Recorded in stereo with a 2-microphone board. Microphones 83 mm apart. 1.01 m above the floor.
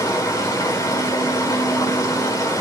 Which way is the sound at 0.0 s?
50° left (ahead or behind).